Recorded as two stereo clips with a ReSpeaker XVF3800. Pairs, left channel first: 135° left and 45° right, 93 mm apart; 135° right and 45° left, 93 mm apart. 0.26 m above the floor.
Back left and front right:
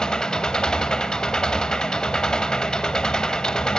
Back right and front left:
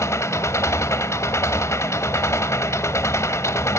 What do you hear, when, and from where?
0.0 s an engine running: 150° right, 1.0 m